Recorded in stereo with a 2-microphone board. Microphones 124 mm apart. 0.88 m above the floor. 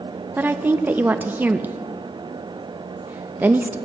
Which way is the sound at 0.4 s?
15° right (ahead or behind).